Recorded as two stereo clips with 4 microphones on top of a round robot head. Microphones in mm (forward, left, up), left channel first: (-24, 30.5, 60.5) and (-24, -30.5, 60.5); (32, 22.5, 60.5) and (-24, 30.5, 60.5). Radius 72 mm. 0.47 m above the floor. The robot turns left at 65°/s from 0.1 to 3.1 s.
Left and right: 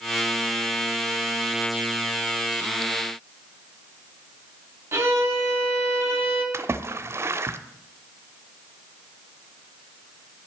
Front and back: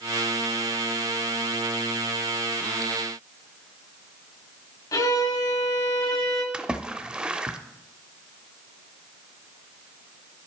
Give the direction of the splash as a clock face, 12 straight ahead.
4 o'clock.